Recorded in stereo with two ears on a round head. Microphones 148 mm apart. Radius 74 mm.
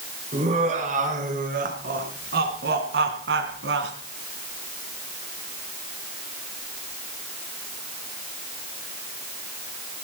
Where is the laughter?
40° right (ahead or behind), 4.5 m; by 3.9 s 75° right (ahead or behind), 3.5 m.